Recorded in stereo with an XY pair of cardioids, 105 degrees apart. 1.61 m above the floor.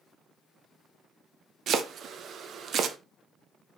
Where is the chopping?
60° right, 0.5 m.